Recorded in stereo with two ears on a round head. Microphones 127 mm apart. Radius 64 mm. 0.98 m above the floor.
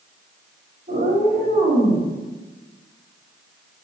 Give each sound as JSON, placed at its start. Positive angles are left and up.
{"t": 0.9, "sound": "a cat meowing", "side_deg": -65, "distance_m": 3.0}